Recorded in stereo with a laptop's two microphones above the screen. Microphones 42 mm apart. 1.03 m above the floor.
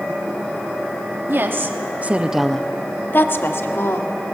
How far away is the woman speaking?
About 1.8 m.